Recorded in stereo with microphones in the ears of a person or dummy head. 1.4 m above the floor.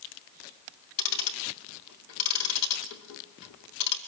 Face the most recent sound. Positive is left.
turn(degrees=70)  # may be behind; listen again after turning